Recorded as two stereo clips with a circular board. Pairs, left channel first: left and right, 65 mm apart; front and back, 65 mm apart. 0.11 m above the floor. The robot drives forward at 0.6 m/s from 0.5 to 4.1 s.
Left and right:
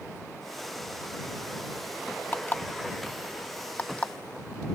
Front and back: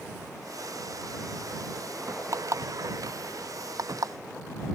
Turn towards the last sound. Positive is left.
turn(degrees=160)